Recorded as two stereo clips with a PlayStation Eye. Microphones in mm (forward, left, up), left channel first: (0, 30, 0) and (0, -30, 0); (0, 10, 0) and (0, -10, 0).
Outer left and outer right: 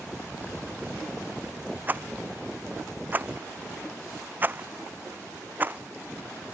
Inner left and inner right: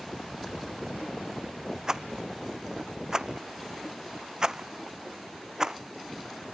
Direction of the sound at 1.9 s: 30° right (ahead or behind).